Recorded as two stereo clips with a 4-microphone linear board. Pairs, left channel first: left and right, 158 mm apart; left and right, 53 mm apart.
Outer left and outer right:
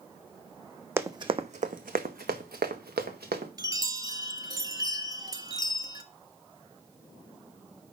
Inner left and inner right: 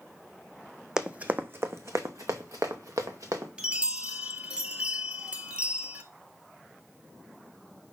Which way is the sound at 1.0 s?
15° right (ahead or behind).